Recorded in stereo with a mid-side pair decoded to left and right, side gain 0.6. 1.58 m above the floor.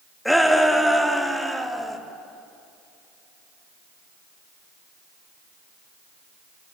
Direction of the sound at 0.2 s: 5° left.